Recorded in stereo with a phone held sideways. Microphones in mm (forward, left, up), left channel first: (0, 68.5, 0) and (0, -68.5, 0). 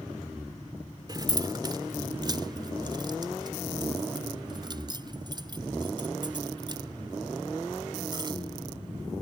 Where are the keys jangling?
30° right (ahead or behind).